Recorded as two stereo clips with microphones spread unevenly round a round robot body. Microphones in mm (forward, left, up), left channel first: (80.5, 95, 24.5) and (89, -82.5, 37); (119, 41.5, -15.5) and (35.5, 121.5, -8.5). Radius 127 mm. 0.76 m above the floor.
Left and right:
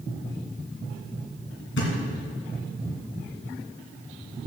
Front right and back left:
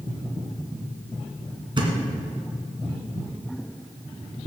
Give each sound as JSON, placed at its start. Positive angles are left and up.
{"t": 1.8, "sound": "a thud", "azimuth_deg": 95, "distance_m": 2.5}